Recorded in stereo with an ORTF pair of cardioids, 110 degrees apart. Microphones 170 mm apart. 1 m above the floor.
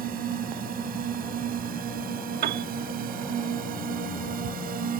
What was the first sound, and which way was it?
A drone, 60° right.